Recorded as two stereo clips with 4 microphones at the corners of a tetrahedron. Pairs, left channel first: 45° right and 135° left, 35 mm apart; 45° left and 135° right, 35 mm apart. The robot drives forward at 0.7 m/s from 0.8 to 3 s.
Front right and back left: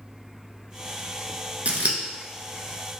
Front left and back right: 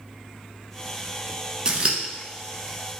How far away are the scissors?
About 0.7 m.